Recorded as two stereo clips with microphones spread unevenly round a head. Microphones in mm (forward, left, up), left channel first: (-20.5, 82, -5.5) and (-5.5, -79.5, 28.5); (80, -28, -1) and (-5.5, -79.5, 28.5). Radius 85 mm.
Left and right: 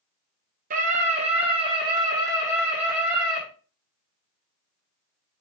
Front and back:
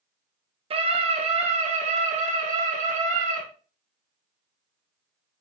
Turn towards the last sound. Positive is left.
turn(degrees=-165)